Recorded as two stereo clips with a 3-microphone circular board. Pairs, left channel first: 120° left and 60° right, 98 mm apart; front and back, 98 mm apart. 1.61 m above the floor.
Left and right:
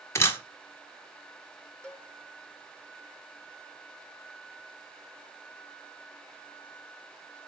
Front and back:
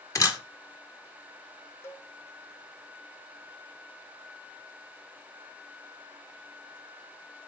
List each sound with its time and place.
0.1 s a camera shutter: 55° left, 0.9 m
1.8 s a cowbell: 45° left, 1.0 m